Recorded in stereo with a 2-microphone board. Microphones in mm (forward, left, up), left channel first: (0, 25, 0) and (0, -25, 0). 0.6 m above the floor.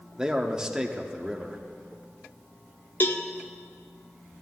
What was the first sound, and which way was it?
A man speaking, 15° right (ahead or behind).